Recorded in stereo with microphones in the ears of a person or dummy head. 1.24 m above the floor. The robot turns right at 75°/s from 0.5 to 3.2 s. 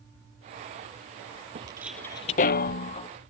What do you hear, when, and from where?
1.6 s footsteps: 30° right (ahead or behind); by 3.1 s 25° left (ahead or behind)